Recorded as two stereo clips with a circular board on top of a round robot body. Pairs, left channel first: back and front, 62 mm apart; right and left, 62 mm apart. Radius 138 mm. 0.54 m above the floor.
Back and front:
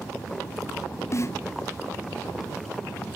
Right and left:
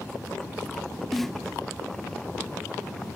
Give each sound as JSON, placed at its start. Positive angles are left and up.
{"t": 1.1, "sound": "a snare drum", "azimuth_deg": -175}